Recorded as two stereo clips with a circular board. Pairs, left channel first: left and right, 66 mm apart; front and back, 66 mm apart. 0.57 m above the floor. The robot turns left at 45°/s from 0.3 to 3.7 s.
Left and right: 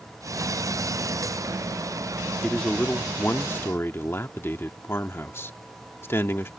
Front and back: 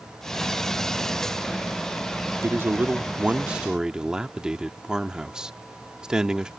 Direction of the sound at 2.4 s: 165° left.